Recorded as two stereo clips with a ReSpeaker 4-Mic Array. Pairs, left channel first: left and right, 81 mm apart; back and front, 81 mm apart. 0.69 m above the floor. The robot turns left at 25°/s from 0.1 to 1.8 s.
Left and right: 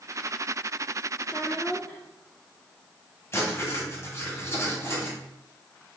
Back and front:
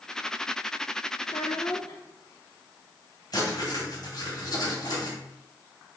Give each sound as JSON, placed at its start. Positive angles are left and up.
{"t": 1.2, "sound": "a child speaking", "azimuth_deg": 165, "distance_m": 0.8}
{"t": 3.3, "sound": "writing", "azimuth_deg": 145, "distance_m": 2.5}